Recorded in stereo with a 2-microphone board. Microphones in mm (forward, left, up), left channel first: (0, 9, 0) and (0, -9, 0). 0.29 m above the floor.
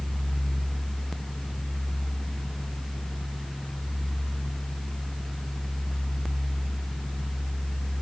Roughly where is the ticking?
No ticking in this recording.